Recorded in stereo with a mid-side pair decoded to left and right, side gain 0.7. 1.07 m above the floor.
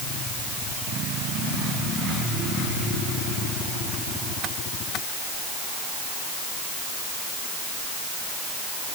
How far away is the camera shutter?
No camera shutter in this recording.